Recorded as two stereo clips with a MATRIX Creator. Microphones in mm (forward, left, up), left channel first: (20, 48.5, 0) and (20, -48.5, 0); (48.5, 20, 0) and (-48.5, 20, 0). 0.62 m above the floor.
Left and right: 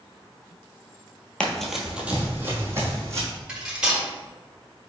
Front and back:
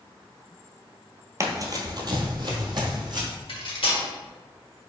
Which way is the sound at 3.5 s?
10° right.